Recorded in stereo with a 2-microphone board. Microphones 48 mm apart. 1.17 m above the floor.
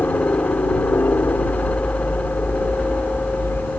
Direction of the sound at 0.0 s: 50° left (ahead or behind).